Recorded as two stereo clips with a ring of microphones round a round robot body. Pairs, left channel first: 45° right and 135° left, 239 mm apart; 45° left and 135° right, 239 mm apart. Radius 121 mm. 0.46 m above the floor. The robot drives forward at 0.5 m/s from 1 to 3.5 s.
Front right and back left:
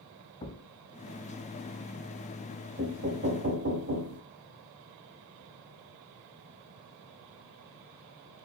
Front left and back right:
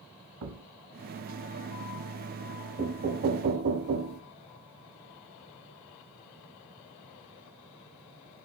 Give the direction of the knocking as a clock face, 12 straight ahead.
6 o'clock.